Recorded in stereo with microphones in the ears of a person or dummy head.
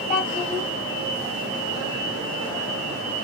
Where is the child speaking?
25° left (ahead or behind), 2.0 m.